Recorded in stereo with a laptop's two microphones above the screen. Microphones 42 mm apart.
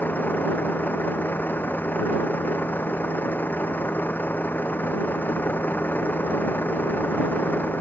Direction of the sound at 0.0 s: 45° left (ahead or behind).